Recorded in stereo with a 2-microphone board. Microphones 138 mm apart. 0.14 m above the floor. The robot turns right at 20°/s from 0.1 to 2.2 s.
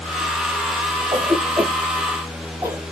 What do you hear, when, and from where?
1.1 s a cough: 30° right (ahead or behind), 3 m; by 2.8 s 10° right (ahead or behind), 3 m